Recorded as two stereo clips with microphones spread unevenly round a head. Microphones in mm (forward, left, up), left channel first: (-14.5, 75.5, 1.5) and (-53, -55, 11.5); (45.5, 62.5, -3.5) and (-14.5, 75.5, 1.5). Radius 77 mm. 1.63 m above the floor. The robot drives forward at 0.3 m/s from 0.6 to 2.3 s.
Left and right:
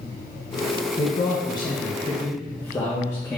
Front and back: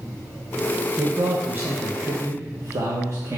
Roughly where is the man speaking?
Left.